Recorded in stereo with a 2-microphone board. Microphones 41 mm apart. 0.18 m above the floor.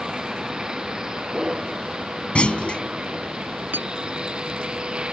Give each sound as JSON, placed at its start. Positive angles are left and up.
{"t": 0.0, "sound": "a vehicle", "side_deg": -15}
{"t": 2.4, "sound": "a clunk", "side_deg": 30}
{"t": 3.7, "sound": "a clink", "side_deg": -55}